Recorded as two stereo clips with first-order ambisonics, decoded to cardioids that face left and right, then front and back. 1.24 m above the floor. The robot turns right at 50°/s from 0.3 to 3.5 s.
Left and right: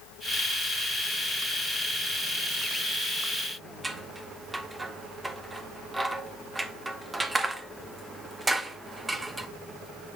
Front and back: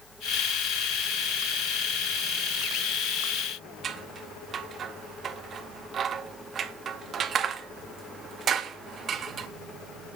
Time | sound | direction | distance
3.8 | scissors | 165° right | 0.7 m